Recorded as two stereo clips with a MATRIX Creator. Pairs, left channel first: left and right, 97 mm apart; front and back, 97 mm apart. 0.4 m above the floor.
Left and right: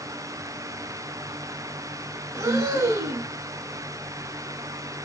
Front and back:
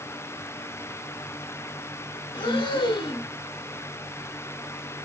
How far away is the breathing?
About 0.5 m.